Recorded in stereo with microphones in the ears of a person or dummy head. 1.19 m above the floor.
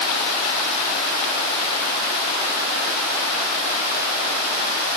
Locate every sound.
Only background noise.